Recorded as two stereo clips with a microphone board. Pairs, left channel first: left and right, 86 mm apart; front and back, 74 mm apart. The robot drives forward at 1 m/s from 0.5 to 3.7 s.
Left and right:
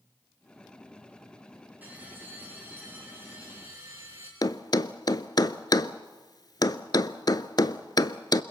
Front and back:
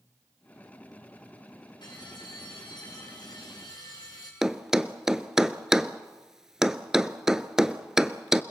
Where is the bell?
20° right, 7.5 m; by 4.3 s 30° right, 6 m.